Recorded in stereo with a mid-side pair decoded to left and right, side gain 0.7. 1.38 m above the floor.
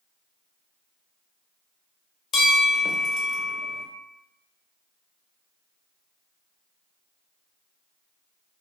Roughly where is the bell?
Ahead left.